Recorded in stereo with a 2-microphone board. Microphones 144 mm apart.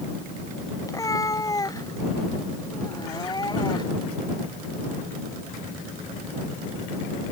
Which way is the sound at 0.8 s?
25° left (ahead or behind).